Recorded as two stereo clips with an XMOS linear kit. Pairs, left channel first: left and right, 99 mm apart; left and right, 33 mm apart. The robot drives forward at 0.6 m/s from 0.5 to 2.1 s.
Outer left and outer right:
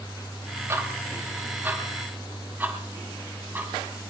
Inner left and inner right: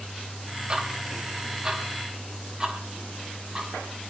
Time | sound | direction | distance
0.7 | ticking | 25° right (ahead or behind) | 1.6 m